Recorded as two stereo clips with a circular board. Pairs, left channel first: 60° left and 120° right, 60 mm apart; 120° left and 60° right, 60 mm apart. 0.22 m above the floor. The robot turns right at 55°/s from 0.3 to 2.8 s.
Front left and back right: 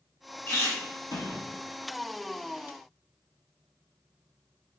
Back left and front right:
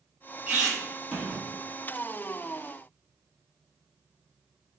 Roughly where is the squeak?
Ahead.